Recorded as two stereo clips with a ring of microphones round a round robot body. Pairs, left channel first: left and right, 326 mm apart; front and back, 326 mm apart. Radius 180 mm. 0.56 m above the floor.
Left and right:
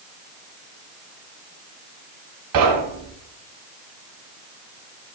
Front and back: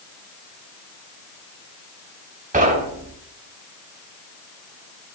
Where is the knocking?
115° right, 2.5 m.